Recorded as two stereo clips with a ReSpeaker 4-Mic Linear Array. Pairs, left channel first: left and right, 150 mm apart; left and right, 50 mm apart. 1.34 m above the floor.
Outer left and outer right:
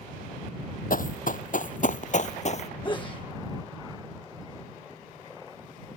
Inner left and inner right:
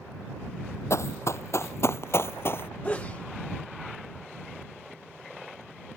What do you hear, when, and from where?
0.9 s running footsteps: 65° left (ahead or behind); by 2.7 s 45° left (ahead or behind)
2.8 s a sneeze: 35° left (ahead or behind)